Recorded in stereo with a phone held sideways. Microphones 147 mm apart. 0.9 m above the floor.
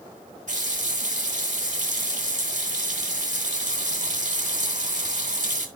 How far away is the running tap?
About 2.5 m.